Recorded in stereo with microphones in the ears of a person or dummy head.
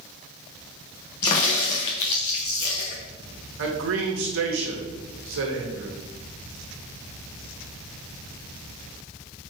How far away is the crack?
About 0.8 m.